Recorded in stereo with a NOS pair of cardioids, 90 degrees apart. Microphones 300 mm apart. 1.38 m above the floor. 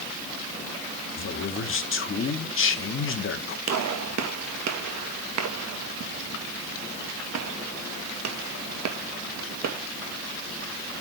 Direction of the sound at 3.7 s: 55° right.